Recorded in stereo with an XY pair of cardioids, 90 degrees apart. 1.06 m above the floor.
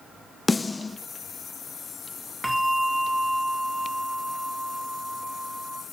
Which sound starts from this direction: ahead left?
A snare drum, at 0.5 s.